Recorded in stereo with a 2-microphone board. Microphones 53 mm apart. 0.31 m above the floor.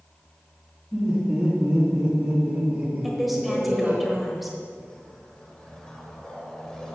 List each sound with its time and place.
0.9 s laughter: 5° right (ahead or behind), 3.5 m; by 4.0 s 35° right (ahead or behind), 3 m
3.0 s a woman speaking: centre (ahead or behind), 1.3 m
4.8 s a whoosh: 15° left (ahead or behind), 1.2 m